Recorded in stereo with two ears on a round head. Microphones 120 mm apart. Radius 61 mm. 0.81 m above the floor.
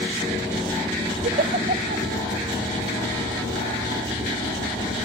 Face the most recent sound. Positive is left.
turn(degrees=-65)  # may be behind; listen again after turning